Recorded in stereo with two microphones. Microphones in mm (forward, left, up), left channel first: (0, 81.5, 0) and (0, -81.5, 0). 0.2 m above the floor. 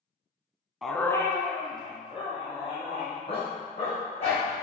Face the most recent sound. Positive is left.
turn(degrees=35)  # may be behind; listen again after turning